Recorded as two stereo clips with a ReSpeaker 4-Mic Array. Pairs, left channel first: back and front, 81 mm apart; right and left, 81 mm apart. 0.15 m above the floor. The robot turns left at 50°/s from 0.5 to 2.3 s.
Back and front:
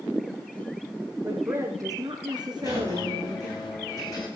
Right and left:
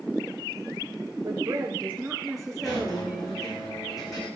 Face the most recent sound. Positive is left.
turn(degrees=-135)